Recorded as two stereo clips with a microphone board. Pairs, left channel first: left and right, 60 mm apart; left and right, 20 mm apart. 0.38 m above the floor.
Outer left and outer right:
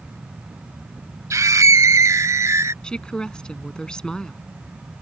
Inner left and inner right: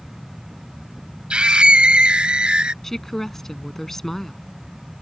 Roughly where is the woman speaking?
Centre.